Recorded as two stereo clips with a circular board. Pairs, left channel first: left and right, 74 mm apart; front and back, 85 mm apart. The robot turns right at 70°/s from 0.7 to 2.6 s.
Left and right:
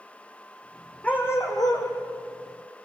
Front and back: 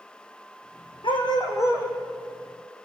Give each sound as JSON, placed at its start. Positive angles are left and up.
{"t": 1.0, "sound": "a dog barking", "azimuth_deg": 15, "distance_m": 4.0}